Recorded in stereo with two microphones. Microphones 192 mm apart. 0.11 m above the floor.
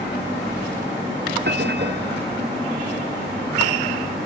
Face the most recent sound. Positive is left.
turn(degrees=-60)  # may be behind; listen again after turning